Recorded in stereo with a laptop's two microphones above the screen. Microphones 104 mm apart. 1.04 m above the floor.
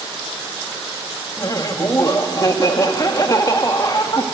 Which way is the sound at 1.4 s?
35° left (ahead or behind).